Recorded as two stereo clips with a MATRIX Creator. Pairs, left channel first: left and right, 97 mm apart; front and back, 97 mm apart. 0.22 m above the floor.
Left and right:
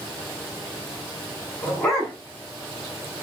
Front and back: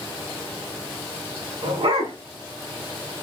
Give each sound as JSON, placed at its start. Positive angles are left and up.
{"t": 1.6, "sound": "a dog barking", "azimuth_deg": 170, "distance_m": 8.0}